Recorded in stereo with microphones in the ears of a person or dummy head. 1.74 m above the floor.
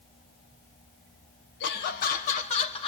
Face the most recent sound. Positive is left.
turn(degrees=30)  # may be behind; listen again after turning